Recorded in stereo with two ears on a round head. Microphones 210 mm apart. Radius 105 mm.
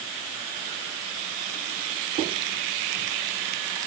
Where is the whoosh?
No whoosh in this recording.